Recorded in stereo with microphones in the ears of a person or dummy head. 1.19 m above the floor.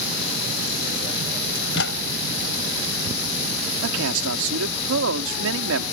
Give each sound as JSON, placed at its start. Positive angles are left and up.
{"t": 1.6, "sound": "a microwave", "side_deg": 70}
{"t": 3.8, "sound": "a man speaking", "side_deg": -75}